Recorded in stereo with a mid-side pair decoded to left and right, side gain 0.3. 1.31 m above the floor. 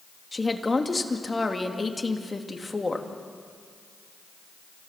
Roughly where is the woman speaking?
Ahead left.